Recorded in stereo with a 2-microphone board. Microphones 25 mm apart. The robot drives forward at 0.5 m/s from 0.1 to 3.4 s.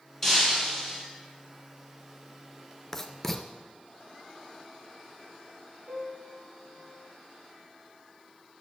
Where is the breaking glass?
15° left (ahead or behind), 3 m.